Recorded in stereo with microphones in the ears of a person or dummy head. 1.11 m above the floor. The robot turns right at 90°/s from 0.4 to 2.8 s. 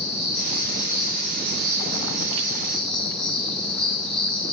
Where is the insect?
145° left, 5 m; by 4.5 s 5° left, 5 m.